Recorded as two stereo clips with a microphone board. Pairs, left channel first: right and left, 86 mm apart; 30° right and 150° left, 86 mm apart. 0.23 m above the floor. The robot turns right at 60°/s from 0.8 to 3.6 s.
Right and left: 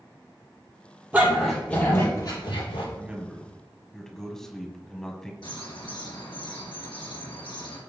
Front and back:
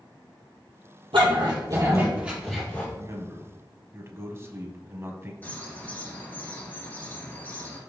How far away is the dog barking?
About 3 m.